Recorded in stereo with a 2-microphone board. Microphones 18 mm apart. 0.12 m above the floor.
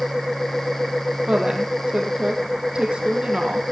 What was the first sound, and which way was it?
A woman speaking, 50° right (ahead or behind).